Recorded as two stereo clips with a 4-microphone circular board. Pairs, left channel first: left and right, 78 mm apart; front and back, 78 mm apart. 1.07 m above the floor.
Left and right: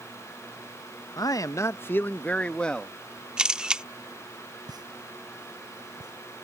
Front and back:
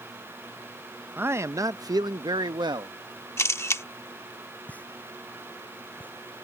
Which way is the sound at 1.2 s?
115° left.